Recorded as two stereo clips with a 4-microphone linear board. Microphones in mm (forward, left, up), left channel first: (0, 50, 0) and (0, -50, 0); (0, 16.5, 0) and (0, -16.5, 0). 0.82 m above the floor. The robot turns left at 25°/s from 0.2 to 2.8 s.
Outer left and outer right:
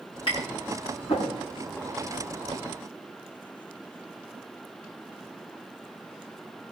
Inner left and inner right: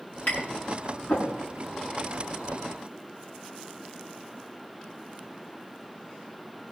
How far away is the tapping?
About 8 m.